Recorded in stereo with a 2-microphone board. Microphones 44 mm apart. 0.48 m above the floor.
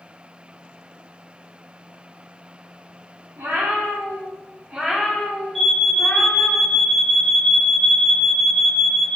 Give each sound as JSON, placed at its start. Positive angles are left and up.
{"t": 3.4, "sound": "a cat meowing", "side_deg": -80, "distance_m": 1.6}
{"t": 5.5, "sound": "an alarm", "side_deg": 5, "distance_m": 2.0}